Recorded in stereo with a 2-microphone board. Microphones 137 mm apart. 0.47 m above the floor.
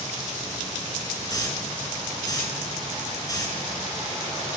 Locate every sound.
1.3 s a hiss: 25° left (ahead or behind), 3.5 m